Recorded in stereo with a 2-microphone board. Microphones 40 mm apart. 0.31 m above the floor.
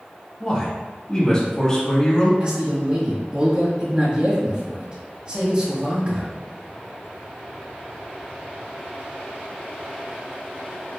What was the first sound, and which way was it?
A man speaking, 20° left (ahead or behind).